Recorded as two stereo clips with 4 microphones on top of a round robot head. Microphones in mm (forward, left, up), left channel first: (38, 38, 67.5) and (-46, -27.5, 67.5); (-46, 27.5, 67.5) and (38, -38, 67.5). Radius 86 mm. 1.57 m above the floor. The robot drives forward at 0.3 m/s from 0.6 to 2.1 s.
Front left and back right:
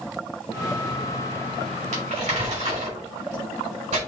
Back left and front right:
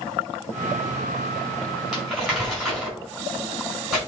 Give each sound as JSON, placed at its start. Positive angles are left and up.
{"t": 1.9, "sound": "crumpling", "azimuth_deg": -125, "distance_m": 5.0}